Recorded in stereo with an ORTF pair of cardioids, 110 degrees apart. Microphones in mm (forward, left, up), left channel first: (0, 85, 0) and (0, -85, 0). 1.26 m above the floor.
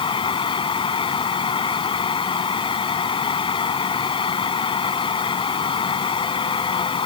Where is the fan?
30° left.